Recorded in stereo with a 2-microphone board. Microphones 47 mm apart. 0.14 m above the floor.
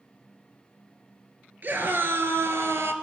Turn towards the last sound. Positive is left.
turn(degrees=-60)  # may be behind; listen again after turning